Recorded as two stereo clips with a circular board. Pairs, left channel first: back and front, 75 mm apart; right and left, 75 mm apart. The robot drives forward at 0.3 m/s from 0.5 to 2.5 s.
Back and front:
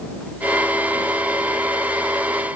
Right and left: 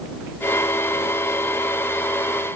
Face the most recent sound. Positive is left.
No sound to turn to.